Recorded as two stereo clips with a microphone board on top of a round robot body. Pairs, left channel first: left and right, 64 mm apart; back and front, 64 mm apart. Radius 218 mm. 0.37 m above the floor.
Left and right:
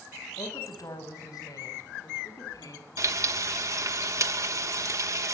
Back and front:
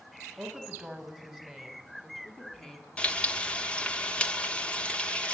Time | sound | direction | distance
0.4 | a woman speaking | 75° left | 4.5 m
3.0 | frying | 110° right | 2.5 m